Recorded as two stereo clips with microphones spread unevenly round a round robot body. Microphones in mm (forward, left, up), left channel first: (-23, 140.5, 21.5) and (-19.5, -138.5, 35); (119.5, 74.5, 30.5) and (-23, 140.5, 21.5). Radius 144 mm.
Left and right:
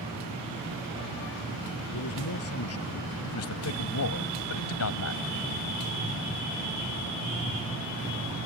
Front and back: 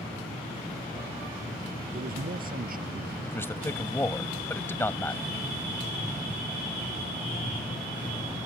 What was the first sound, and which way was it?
A man speaking, 130° left.